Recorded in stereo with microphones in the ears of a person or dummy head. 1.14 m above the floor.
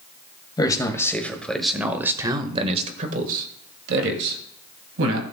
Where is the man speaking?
20° left (ahead or behind), 1.7 m; by 5.2 s 75° right (ahead or behind), 2.5 m.